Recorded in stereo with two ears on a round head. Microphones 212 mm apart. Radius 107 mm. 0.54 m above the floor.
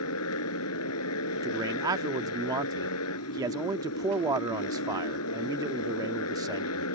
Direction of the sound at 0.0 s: 65° left (ahead or behind).